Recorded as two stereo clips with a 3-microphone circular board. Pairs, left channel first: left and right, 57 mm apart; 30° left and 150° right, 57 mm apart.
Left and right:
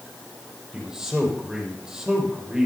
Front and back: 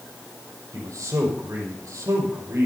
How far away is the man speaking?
About 6 m.